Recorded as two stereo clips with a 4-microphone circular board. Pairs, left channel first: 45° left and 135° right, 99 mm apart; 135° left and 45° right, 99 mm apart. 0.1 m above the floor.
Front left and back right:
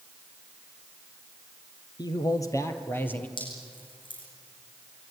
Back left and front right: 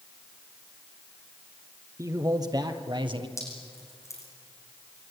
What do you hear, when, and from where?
2.0 s a man speaking: 10° left, 2.5 m; by 3.3 s 25° right, 2.5 m
3.4 s dripping: 75° left, 7 m